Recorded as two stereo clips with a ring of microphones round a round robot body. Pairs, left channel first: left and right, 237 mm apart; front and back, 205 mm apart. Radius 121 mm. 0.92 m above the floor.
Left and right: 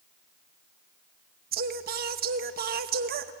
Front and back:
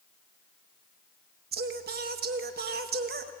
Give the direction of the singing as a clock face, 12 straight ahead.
5 o'clock.